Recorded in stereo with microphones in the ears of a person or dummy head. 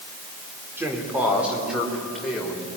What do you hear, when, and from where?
0.8 s a man speaking: 10° right (ahead or behind), 4 m; by 2.7 s 5° left (ahead or behind), 5.5 m